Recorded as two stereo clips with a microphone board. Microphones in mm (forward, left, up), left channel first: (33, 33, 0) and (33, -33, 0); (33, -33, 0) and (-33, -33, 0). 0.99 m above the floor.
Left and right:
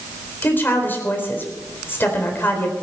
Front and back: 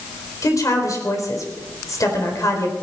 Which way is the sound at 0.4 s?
30° left.